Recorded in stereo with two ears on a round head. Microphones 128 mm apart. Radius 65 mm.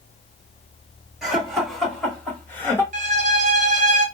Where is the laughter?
Centre (ahead or behind), 1.8 m; by 2.8 s 15° left (ahead or behind), 1.1 m.